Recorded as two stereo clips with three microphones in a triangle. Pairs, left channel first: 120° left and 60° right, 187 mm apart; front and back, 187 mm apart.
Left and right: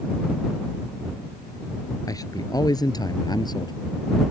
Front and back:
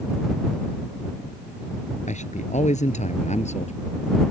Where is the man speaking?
50° left; by 3.8 s 55° left.